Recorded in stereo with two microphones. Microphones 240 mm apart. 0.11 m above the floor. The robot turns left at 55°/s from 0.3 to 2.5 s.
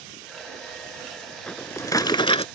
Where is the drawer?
5° left (ahead or behind); by 2.5 s 25° left (ahead or behind).